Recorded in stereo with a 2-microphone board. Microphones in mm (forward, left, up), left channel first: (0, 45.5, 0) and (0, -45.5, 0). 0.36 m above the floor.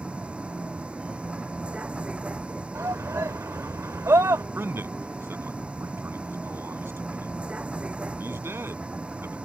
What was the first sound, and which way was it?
A vehicle, 10° right (ahead or behind).